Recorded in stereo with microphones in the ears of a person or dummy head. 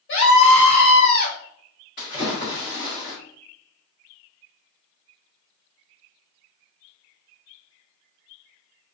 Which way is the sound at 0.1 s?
65° left (ahead or behind).